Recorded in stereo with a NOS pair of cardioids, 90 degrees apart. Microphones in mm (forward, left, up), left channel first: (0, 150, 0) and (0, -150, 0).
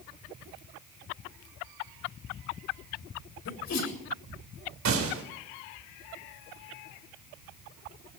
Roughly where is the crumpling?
I don't hear crumpling.